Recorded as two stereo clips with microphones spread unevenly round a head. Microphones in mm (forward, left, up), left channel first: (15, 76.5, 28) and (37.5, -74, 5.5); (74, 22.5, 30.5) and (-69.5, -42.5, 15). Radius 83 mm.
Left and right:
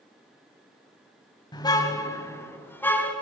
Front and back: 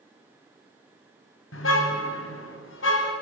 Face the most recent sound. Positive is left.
turn(degrees=20)